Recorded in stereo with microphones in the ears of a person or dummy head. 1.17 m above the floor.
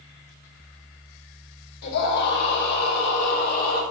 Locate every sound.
1.8 s a scream: 60° left (ahead or behind), 3.5 m; by 3.8 s 55° left (ahead or behind), 5 m